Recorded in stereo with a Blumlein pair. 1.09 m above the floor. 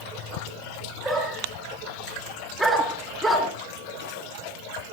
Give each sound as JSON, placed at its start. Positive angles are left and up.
{"t": 1.0, "sound": "a dog barking", "azimuth_deg": -5, "distance_m": 5.0}